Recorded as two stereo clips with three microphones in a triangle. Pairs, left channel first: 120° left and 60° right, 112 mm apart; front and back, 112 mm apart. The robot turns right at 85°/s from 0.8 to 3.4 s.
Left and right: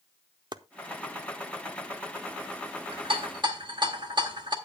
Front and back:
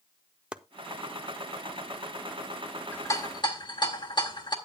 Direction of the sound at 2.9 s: 70° right.